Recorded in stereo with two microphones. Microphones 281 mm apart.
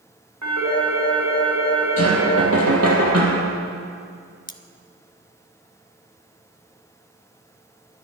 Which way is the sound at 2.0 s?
60° right (ahead or behind).